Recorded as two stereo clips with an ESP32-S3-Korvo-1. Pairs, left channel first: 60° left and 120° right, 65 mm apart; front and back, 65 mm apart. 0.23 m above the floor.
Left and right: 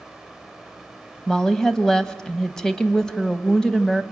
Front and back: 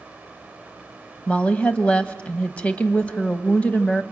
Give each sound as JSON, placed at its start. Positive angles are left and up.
{"t": 1.3, "sound": "a woman speaking", "azimuth_deg": 0, "distance_m": 1.1}